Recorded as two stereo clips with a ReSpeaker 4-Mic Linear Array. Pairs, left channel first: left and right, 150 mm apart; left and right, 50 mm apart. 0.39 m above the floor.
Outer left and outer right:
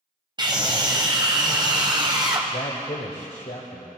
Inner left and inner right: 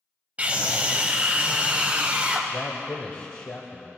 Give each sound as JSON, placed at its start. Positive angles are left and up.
{"t": 0.4, "sound": "a scream", "side_deg": -30, "distance_m": 2.0}
{"t": 2.5, "sound": "a man speaking", "side_deg": 55, "distance_m": 1.4}